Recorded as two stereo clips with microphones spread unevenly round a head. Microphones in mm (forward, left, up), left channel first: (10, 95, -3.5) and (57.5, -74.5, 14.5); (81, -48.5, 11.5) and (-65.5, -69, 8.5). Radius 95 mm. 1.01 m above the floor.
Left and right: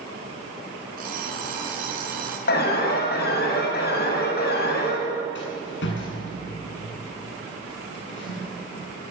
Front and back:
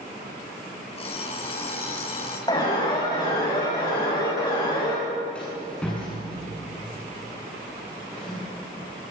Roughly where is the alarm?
Left.